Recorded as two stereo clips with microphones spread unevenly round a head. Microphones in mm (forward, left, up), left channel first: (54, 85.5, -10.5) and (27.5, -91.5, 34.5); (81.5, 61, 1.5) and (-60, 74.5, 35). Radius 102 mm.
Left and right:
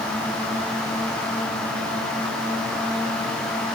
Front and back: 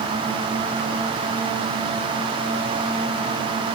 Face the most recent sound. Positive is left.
No sound to turn to.